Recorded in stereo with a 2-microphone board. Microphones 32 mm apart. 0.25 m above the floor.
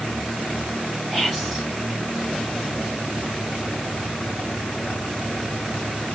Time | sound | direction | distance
1.1 | whispering | 5° right (ahead or behind) | 0.9 m